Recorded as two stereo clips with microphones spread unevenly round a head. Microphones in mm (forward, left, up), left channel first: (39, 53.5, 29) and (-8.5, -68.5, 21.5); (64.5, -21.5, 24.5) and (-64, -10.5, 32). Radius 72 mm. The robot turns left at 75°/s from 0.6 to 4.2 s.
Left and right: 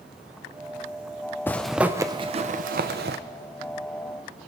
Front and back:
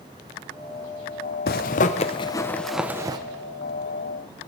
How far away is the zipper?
About 0.7 m.